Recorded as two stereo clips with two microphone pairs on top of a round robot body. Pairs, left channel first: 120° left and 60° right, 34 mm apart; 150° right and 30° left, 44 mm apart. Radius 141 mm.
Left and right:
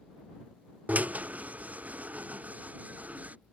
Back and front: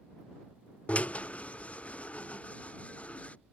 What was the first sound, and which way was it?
A drill, 90° right.